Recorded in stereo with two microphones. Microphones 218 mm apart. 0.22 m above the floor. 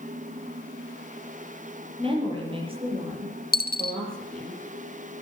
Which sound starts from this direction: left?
A dropped coin, at 3.5 s.